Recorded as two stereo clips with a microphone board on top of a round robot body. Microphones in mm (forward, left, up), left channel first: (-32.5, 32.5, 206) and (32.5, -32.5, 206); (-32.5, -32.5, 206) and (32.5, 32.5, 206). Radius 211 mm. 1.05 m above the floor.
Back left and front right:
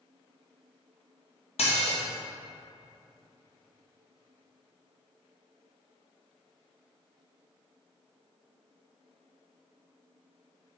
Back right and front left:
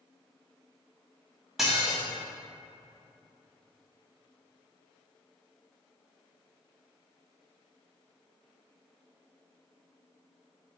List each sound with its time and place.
1.6 s dishes clattering: 130° left, 0.7 m